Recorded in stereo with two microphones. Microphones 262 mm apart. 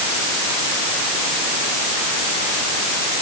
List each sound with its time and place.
Only background noise.